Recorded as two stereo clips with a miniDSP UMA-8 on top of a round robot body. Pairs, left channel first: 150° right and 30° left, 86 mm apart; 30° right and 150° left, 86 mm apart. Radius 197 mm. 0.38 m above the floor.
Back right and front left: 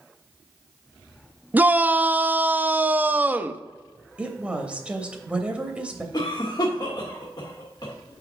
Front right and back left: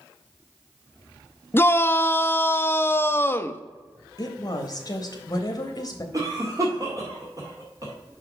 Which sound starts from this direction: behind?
A cough, at 6.1 s.